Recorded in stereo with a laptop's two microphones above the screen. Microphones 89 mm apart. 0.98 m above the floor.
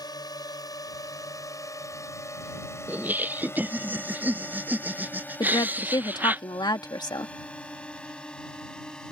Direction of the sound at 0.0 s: 55° left (ahead or behind).